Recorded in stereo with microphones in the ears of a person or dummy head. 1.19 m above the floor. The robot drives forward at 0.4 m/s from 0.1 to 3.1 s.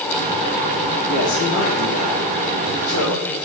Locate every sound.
1.1 s a man speaking: 70° left (ahead or behind), 2.5 m; by 3.4 s 85° left, 2.5 m